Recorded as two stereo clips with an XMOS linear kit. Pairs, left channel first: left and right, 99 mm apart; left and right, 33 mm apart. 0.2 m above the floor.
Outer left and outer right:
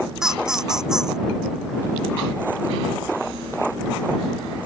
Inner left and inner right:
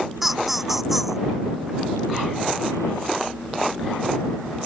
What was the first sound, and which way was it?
Laughter, 5° right (ahead or behind).